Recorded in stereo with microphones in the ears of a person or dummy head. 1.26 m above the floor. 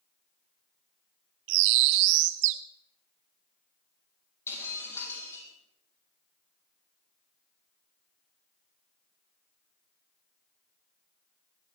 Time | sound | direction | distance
1.5 | a bird | 65° right (ahead or behind) | 0.6 m
4.5 | breaking glass | 20° left (ahead or behind) | 8 m